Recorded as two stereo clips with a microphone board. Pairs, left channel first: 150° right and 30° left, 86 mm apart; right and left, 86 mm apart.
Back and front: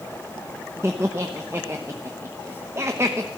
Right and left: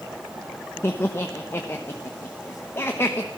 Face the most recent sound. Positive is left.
turn(degrees=-30)